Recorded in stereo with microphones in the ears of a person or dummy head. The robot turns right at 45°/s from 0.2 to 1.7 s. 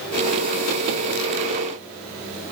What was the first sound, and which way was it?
Only background noise.